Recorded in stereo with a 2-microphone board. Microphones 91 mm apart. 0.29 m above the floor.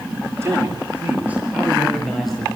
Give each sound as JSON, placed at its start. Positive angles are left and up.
{"t": 0.4, "sound": "a man speaking", "side_deg": -30, "distance_m": 5.5}